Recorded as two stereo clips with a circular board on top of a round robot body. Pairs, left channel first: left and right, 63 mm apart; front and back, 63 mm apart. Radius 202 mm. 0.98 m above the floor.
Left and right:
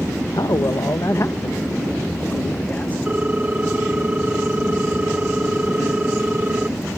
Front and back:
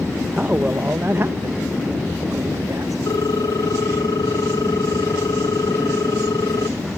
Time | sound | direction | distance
0.3 | a man speaking | 110° left | ?
3.1 | a ringtone | 20° right | ?